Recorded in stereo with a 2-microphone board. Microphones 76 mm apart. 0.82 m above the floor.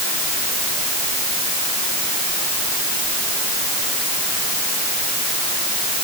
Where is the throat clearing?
No throat clearing in this recording.